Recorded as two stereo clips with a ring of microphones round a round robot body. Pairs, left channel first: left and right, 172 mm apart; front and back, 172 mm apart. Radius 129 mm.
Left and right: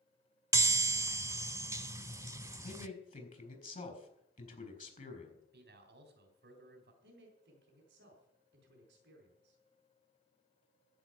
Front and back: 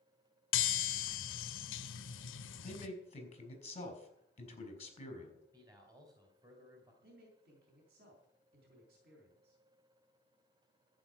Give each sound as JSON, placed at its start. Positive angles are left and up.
{"t": 0.5, "sound": "a chime", "azimuth_deg": -15, "distance_m": 0.8}
{"t": 2.6, "sound": "a man speaking", "azimuth_deg": 50, "distance_m": 4.0}
{"t": 5.5, "sound": "a man speaking", "azimuth_deg": -110, "distance_m": 2.5}
{"t": 7.0, "sound": "a man speaking", "azimuth_deg": -135, "distance_m": 4.0}